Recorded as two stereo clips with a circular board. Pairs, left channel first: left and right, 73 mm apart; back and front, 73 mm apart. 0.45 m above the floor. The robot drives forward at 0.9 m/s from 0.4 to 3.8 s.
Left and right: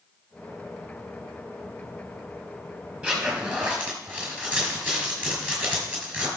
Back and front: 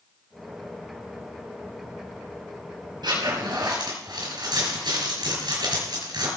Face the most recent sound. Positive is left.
turn(degrees=-20)